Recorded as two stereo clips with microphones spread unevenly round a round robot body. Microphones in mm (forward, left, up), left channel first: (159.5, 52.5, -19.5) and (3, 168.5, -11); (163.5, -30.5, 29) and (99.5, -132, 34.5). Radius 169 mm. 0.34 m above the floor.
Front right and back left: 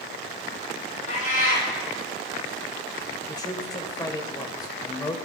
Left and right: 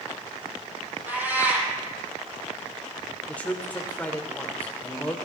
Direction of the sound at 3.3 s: Straight ahead.